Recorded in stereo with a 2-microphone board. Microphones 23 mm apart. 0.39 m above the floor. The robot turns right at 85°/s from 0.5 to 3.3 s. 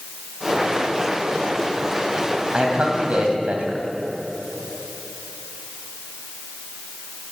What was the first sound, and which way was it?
A man speaking, 135° right.